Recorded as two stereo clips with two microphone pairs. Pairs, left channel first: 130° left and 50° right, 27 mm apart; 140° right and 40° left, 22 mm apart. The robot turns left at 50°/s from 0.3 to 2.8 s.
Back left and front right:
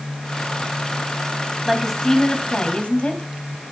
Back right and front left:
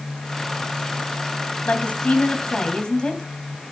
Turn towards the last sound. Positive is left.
turn(degrees=165)